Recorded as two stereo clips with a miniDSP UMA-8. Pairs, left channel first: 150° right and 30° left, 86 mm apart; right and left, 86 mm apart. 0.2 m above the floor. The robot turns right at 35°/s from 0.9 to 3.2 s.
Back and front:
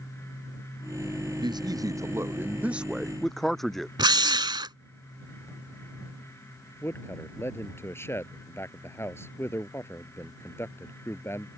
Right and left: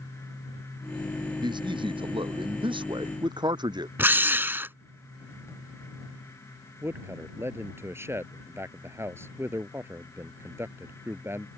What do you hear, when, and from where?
1.4 s a man speaking: 60° left; by 3.9 s 125° left
4.0 s a drill: 30° left
6.8 s a man speaking: 150° left